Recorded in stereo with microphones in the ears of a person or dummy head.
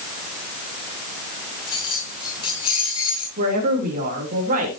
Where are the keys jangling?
30° left (ahead or behind), 7.5 m.